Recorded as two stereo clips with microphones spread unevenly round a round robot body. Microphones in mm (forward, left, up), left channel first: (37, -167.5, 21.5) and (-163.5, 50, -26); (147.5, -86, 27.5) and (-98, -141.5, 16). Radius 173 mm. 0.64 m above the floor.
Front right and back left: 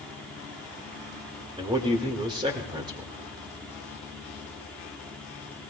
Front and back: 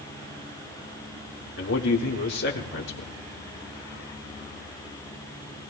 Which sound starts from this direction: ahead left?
A man speaking, at 1.6 s.